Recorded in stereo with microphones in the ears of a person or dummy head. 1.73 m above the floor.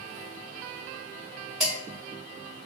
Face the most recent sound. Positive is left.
turn(degrees=-5)  # may be behind; listen again after turning